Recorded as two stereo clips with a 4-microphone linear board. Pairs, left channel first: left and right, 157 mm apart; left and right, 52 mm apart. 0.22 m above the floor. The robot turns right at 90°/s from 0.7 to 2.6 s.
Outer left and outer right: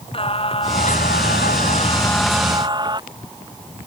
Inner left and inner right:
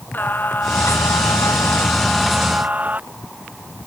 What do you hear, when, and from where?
0.1 s singing: 35° left; by 3.0 s 150° right